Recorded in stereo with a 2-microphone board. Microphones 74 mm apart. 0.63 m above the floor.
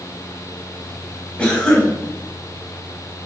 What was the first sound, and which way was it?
A cough, 10° left (ahead or behind).